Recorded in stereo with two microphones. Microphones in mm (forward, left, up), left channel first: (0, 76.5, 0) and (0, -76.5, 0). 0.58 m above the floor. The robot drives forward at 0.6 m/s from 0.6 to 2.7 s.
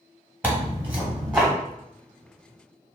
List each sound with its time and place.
0.4 s tearing paper: 10° right (ahead or behind), 0.9 m; by 1.5 s 5° right (ahead or behind), 1.4 m